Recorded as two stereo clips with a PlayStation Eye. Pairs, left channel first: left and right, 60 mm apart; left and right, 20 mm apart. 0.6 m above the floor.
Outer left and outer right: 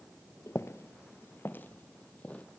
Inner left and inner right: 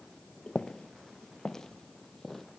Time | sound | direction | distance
0.5 | footsteps | 50° left (ahead or behind) | 0.8 m